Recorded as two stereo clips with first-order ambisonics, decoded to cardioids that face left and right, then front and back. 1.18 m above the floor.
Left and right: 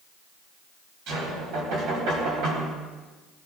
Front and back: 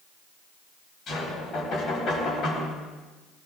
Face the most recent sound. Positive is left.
turn(degrees=-65)